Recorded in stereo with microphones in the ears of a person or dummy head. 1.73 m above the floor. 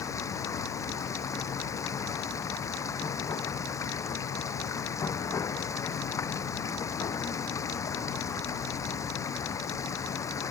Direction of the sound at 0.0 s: 15° left (ahead or behind).